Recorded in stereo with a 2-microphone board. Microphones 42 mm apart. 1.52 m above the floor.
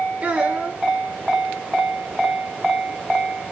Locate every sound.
0.2 s a child speaking: 25° right (ahead or behind), 5 m